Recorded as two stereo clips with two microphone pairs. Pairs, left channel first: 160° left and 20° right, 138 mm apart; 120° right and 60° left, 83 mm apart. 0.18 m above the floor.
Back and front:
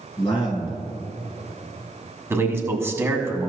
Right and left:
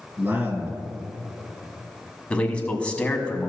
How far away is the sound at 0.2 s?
About 2.5 m.